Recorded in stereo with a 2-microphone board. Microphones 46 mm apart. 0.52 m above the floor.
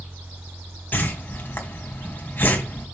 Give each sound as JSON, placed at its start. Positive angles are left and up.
{"t": 0.9, "sound": "a whoosh", "side_deg": 40, "distance_m": 2.5}